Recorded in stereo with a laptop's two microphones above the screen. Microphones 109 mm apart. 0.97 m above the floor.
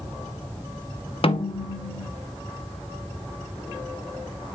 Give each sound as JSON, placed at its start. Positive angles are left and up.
{"t": 1.2, "sound": "a snare drum", "side_deg": 60, "distance_m": 0.6}